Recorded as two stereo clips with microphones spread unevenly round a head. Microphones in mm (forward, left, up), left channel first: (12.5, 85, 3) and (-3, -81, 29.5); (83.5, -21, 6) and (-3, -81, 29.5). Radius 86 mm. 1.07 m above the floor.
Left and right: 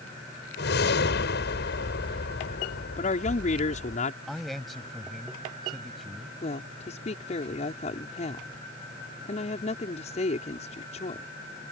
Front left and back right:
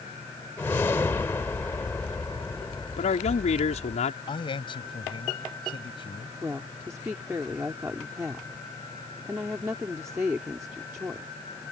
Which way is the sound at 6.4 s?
140° left.